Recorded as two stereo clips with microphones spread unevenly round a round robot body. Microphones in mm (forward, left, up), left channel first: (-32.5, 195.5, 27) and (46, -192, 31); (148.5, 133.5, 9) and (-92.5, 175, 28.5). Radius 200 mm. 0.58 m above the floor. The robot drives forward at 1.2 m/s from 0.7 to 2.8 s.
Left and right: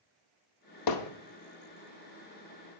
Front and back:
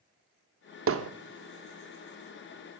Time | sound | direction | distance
0.9 | hammering | 135° left | 0.8 m